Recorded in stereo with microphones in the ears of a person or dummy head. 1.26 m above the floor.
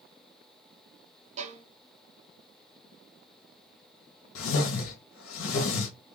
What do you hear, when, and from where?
1.4 s a violin: 45° right (ahead or behind), 0.9 m
4.3 s a whoosh: 85° left, 1.2 m